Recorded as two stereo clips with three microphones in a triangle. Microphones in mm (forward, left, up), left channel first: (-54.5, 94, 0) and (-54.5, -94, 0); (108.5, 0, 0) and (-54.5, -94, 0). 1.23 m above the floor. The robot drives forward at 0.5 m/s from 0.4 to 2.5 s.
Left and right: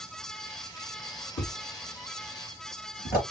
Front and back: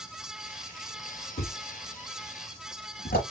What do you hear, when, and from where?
1.4 s a thud: 55° left, 4.5 m; by 3.2 s 60° left, 4 m